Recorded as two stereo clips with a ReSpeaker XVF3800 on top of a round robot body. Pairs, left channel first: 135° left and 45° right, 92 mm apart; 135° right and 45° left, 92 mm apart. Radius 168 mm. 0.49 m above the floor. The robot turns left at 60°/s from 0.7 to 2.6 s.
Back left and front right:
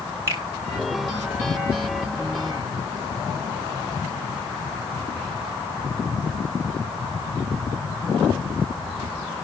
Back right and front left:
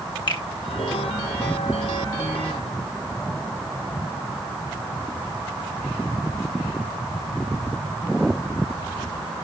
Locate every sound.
0.3 s a finger snap: 105° right, 3 m